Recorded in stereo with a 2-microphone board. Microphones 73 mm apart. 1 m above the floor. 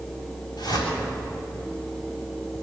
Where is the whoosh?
75° left (ahead or behind), 7.5 m.